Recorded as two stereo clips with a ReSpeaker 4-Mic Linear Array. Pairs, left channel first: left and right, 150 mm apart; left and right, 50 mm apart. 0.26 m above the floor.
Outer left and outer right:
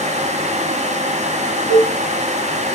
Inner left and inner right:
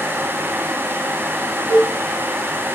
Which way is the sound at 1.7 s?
45° right (ahead or behind).